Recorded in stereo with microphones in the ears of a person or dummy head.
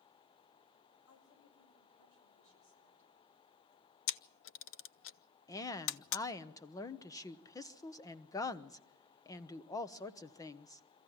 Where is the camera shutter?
60° left (ahead or behind), 0.6 m.